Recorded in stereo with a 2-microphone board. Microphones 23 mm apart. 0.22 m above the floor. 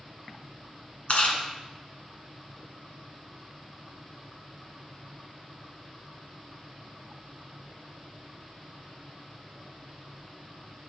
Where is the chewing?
60° left (ahead or behind), 1.5 m.